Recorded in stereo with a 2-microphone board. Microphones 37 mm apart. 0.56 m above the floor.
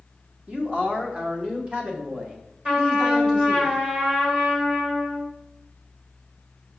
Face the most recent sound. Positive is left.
turn(degrees=-30)  # may be behind; listen again after turning